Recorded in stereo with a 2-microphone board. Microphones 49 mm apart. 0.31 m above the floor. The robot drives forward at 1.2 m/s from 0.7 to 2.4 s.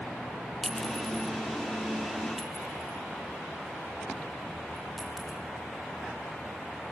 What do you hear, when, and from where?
0.6 s a clink: 5° left (ahead or behind), 0.5 m; by 5.4 s centre (ahead or behind), 2.5 m